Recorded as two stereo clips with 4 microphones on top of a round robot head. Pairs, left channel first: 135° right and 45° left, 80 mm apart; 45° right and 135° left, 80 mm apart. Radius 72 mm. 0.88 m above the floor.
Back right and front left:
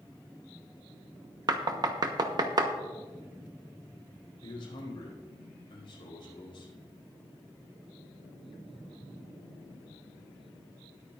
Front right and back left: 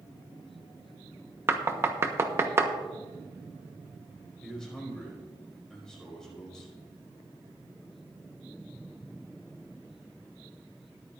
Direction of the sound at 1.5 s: 75° left.